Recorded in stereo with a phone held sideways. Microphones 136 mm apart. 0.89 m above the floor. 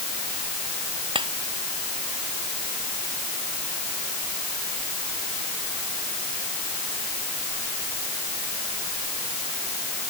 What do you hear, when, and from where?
1.1 s tapping: 40° right (ahead or behind)